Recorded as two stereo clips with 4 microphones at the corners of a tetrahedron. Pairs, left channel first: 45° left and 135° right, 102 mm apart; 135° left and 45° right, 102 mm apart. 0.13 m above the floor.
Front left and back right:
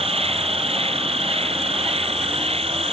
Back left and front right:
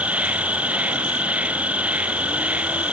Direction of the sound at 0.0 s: 120° right.